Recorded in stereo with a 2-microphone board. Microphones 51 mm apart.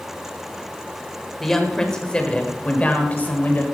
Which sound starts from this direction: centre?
A woman speaking, at 1.4 s.